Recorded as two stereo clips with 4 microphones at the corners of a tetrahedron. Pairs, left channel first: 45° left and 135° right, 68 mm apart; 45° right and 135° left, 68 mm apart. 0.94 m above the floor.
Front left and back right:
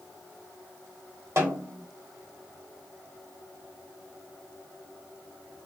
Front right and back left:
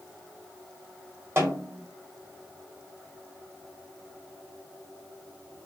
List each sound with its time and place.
1.4 s a snare drum: 175° right, 1.1 m